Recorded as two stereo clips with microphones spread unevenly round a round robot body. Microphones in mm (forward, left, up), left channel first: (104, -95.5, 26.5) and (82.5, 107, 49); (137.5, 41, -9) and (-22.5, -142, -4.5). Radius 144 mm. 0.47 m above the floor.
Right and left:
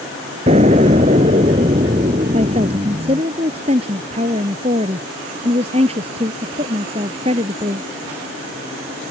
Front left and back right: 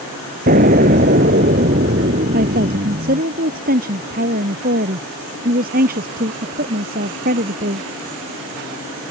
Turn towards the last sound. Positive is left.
turn(degrees=165)